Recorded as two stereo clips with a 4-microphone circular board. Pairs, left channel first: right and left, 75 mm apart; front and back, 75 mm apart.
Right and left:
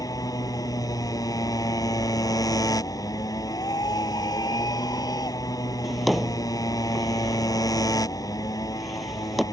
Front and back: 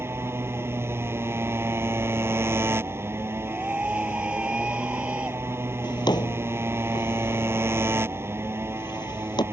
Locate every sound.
0.0 s a motorcycle: 125° right
3.4 s a scream: 105° right
5.8 s a drawer: straight ahead